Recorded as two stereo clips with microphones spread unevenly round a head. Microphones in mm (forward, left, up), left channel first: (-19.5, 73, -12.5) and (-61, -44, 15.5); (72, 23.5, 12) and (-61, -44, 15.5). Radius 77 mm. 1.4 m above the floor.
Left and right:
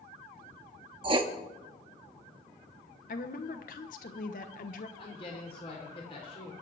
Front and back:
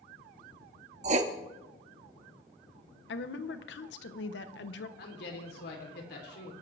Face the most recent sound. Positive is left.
turn(degrees=10)